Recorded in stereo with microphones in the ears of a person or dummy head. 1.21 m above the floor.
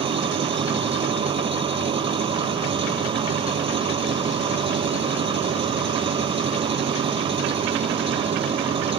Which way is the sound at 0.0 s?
25° right (ahead or behind).